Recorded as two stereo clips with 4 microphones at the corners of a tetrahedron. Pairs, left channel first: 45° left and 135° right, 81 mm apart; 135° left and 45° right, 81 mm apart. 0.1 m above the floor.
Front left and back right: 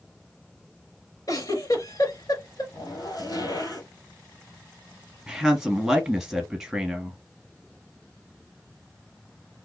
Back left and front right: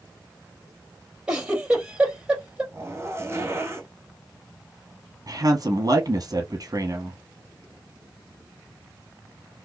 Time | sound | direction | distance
1.3 | a giggle | 30° left | 2.5 m
2.7 | a zipper | 10° left | 3 m
5.3 | a woman speaking | 55° right | 1.8 m